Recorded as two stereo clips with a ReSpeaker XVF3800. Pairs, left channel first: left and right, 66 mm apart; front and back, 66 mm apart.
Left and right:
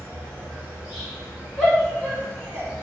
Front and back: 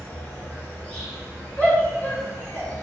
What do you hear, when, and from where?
0.0 s an insect: 25° right, 1.8 m
1.6 s a shout: 25° left, 1.5 m